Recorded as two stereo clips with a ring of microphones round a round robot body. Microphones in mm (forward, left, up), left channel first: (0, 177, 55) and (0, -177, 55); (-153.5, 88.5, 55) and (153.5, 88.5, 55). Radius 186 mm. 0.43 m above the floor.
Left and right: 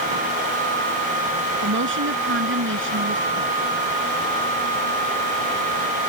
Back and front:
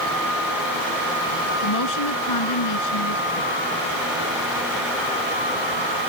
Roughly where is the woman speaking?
Behind right.